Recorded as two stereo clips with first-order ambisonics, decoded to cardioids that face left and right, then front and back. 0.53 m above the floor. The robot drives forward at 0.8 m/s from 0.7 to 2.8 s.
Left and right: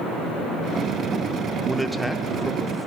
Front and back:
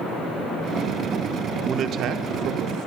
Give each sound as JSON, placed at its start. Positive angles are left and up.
{"t": 1.6, "sound": "a man speaking", "azimuth_deg": 180, "distance_m": 1.0}